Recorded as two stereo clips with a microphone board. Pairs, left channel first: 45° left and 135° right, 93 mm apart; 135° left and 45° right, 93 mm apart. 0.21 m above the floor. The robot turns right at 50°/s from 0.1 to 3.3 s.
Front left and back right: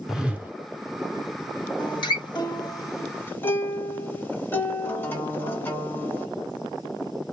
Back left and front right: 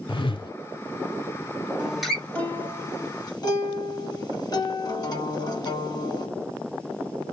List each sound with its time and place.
0.1 s a whoosh: 140° left, 0.8 m; by 0.5 s 160° left, 0.8 m
1.8 s a guitar: 30° left, 1.4 m; by 6.3 s 105° left, 1.4 m